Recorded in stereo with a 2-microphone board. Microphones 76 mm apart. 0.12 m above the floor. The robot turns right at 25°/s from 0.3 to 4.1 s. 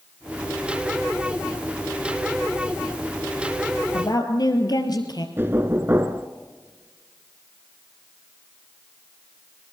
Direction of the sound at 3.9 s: 60° left (ahead or behind).